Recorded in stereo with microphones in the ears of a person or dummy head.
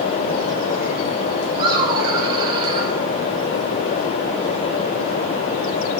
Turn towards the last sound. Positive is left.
turn(degrees=-20)  # may be behind; listen again after turning